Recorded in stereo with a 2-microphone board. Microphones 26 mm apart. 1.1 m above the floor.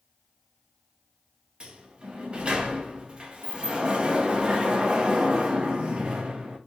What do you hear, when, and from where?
1.6 s a sliding door: 35° right (ahead or behind), 0.5 m